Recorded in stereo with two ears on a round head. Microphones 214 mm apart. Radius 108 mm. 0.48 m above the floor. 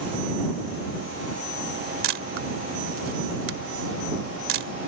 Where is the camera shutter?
60° right (ahead or behind).